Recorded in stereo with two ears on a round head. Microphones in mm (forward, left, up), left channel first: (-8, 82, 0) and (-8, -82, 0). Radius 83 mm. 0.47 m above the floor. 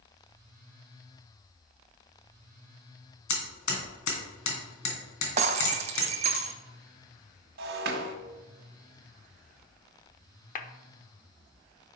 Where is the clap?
45° left (ahead or behind), 0.9 m.